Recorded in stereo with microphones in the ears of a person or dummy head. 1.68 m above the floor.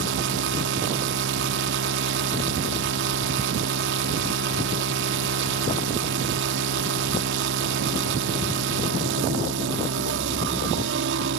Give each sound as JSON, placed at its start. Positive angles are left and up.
{"t": 0.0, "sound": "a machine running", "side_deg": -70}